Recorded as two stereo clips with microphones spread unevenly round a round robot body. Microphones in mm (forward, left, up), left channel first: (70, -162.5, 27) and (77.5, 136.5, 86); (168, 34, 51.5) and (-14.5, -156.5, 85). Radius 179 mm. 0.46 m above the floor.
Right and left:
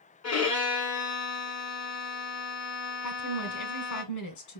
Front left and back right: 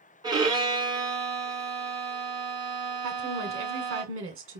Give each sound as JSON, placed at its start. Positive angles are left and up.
{"t": 0.2, "sound": "a violin", "azimuth_deg": -55, "distance_m": 2.5}
{"t": 3.0, "sound": "a woman speaking", "azimuth_deg": -90, "distance_m": 1.9}